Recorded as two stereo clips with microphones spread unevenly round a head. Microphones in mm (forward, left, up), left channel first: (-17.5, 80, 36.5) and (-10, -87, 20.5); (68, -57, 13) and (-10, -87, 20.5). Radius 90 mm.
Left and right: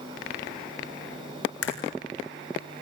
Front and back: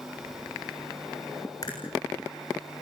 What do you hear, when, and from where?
1.6 s a crack: 90° left, 7 m